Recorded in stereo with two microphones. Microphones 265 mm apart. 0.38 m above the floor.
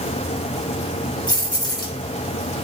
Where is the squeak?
I don't hear a squeak.